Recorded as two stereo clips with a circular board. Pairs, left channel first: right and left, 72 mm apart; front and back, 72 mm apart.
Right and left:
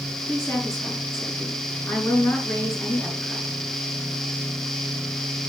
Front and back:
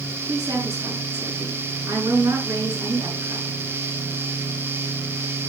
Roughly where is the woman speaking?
Behind right.